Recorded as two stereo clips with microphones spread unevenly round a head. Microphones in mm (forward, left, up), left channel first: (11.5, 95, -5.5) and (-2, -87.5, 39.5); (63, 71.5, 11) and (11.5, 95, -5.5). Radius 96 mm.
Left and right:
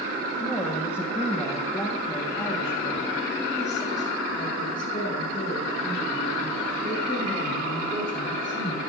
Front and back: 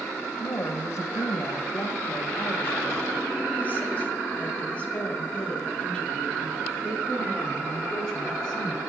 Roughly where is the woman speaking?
Ahead.